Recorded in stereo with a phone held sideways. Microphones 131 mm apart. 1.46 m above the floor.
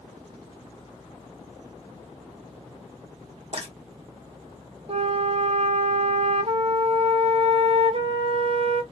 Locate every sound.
3.5 s frying: 50° right (ahead or behind), 1.6 m
4.9 s a flute: 50° right (ahead or behind), 0.6 m